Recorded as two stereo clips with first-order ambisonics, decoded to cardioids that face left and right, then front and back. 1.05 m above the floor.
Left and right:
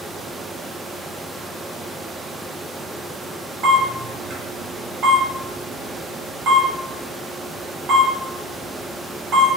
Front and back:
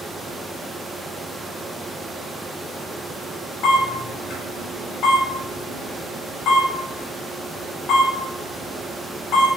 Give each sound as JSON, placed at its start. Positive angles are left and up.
{"t": 3.6, "sound": "a camera shutter", "azimuth_deg": -40, "distance_m": 1.6}